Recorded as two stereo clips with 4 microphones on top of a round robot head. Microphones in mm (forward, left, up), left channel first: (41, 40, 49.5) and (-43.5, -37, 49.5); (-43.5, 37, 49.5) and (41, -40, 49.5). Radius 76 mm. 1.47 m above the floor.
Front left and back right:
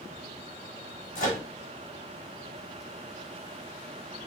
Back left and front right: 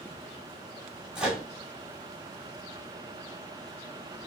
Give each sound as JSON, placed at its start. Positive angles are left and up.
{"t": 1.1, "sound": "a microwave", "azimuth_deg": 40, "distance_m": 1.2}